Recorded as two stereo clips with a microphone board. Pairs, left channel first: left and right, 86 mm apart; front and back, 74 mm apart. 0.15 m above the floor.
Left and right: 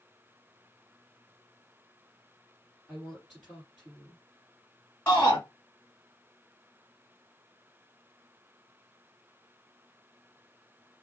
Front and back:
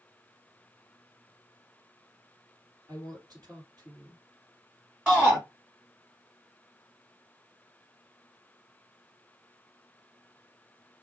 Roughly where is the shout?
Behind left.